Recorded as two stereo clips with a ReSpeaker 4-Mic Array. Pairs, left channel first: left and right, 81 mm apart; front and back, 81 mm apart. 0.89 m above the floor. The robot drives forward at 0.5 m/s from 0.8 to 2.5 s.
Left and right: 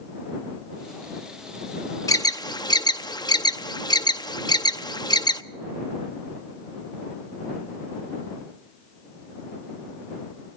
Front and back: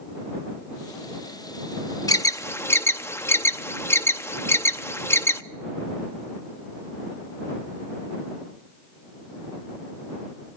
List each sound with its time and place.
2.1 s an alarm: 45° left, 0.7 m; by 5.4 s 60° left, 0.6 m